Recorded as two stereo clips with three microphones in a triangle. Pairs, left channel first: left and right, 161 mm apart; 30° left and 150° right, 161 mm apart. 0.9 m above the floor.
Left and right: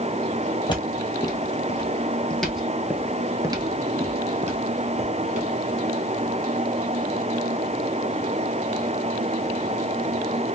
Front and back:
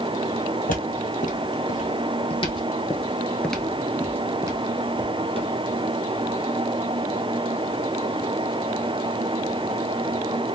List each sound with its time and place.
0.7 s footsteps: 35° left, 1.6 m; by 5.5 s 100° right, 1.5 m